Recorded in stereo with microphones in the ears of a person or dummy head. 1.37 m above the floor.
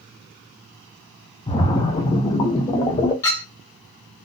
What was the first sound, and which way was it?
A splash, 25° left (ahead or behind).